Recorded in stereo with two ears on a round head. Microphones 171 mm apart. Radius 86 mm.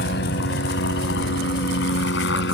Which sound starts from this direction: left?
A helicopter, at 0.0 s.